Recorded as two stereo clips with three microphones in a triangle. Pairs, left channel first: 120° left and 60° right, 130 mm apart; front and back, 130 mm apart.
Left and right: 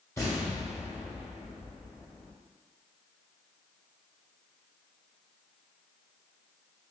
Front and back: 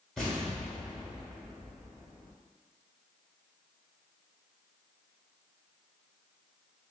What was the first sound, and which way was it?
An explosion, 80° left.